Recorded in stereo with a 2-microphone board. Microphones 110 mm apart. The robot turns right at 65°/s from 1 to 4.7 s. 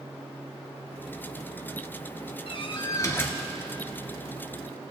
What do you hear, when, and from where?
2.5 s a door slam: 110° left, 1.4 m; by 3.4 s 170° left, 1.4 m